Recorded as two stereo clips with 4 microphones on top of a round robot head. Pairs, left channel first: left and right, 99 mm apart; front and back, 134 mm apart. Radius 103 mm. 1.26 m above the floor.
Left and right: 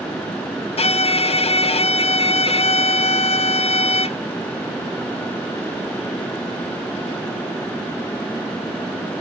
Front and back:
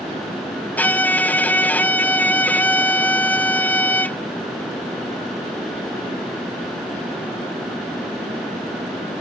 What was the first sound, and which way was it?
A violin, 80° left.